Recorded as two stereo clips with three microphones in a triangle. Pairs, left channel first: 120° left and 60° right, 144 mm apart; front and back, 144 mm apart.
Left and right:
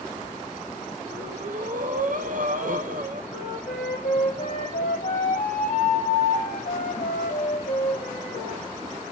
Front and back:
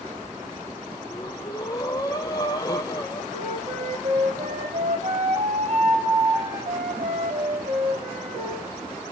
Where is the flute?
145° left, 2 m.